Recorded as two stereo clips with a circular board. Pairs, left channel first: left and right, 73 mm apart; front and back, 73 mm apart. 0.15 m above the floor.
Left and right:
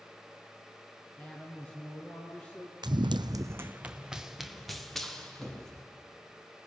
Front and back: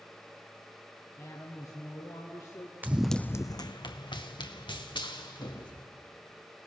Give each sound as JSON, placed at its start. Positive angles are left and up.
{"t": 1.2, "sound": "a woman speaking", "azimuth_deg": 20, "distance_m": 2.0}
{"t": 2.8, "sound": "running footsteps", "azimuth_deg": -115, "distance_m": 0.7}